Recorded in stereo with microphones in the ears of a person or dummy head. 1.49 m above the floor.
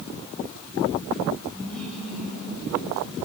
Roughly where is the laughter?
Centre.